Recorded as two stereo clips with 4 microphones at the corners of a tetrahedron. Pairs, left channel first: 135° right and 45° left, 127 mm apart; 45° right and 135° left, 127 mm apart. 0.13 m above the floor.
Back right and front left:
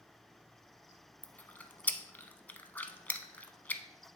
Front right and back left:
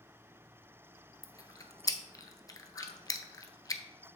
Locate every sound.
1.2 s chewing: 65° right, 0.5 m